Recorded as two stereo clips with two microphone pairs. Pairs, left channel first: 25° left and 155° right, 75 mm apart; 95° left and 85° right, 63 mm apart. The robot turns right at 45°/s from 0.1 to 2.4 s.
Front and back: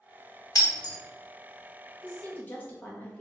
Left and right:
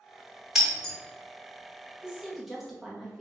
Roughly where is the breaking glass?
Ahead.